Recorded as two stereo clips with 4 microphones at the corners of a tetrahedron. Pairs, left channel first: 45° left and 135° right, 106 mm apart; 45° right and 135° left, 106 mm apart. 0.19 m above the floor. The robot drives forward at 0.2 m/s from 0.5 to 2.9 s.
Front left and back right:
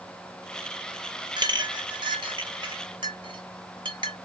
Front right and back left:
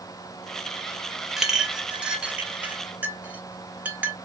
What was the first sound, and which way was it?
A clink, 140° right.